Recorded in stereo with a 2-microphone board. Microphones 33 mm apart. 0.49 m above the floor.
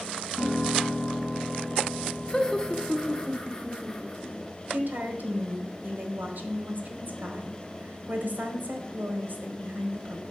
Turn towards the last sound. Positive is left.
turn(degrees=-55)  # may be behind; listen again after turning